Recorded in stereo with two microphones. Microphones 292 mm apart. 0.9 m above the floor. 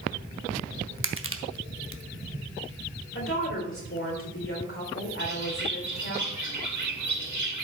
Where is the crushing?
45° right (ahead or behind), 0.8 m.